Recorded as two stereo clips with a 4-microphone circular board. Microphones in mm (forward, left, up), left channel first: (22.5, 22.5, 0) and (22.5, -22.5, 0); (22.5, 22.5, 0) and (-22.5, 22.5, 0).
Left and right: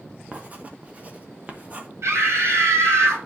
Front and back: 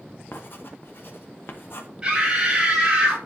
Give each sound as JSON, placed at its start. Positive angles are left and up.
{"t": 0.3, "sound": "writing", "azimuth_deg": -35, "distance_m": 1.1}
{"t": 2.0, "sound": "a scream", "azimuth_deg": -110, "distance_m": 3.0}